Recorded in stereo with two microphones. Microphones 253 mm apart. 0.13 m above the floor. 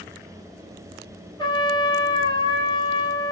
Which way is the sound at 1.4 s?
20° left (ahead or behind).